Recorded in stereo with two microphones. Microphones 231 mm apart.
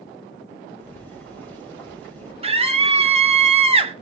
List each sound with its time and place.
0.8 s boiling: 5° left (ahead or behind), 6 m
2.4 s a scream: 25° right (ahead or behind), 1.5 m